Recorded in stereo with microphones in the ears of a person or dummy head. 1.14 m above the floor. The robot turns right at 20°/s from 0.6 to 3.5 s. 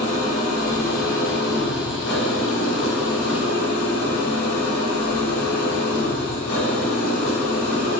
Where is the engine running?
40° left, 3 m; by 8.0 s 100° left, 3 m.